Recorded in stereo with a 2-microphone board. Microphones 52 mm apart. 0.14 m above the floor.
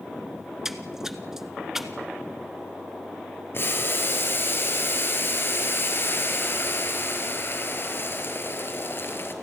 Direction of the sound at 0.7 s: 10° right (ahead or behind).